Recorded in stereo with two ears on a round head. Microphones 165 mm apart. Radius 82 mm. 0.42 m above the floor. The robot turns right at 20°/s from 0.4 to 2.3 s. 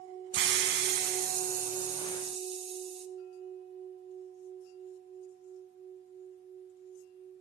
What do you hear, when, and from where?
0.3 s a hiss: 70° right, 0.6 m; by 3.1 s 35° right, 0.6 m